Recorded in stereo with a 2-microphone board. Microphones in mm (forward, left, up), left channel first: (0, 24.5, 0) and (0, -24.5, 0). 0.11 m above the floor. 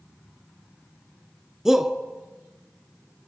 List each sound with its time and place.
1.6 s a shout: 10° right (ahead or behind), 1.3 m